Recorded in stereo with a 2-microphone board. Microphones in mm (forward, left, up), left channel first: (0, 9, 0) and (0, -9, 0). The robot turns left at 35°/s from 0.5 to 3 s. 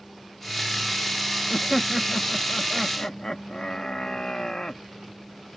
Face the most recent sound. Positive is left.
turn(degrees=140)